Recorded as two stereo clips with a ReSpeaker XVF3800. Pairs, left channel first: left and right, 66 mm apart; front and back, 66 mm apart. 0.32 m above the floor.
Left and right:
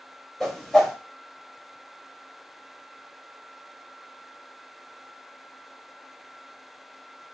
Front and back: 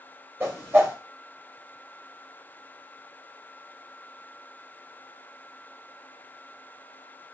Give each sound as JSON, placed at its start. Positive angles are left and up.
{"t": 0.4, "sound": "a whoosh", "azimuth_deg": 175, "distance_m": 1.2}